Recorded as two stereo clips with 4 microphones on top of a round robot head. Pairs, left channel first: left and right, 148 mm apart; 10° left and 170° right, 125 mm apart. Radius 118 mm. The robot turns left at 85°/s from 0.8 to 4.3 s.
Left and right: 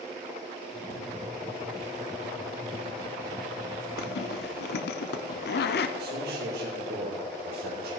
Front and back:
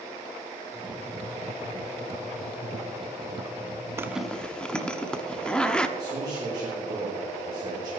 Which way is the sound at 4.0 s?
120° left.